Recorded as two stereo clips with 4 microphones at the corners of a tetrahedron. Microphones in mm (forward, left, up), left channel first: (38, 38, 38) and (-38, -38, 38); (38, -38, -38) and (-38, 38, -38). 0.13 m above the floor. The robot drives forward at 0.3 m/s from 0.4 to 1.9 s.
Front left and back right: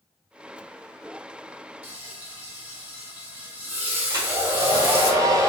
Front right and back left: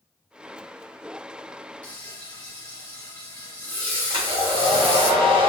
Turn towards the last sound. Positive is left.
turn(degrees=170)